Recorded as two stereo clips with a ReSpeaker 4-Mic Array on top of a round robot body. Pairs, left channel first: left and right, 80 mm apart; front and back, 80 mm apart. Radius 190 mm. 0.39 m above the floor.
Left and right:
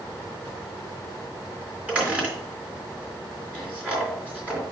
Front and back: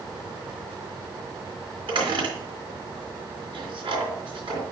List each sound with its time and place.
1.9 s a squeak: 165° right, 4 m